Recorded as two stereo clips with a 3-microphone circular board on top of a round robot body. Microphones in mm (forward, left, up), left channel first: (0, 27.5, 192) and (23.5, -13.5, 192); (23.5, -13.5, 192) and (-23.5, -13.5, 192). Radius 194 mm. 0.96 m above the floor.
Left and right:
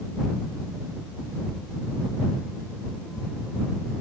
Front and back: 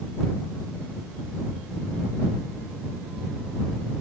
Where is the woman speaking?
No woman speaking in this recording.